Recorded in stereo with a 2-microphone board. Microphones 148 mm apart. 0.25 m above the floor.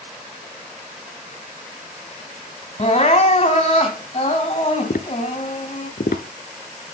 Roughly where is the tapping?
Left.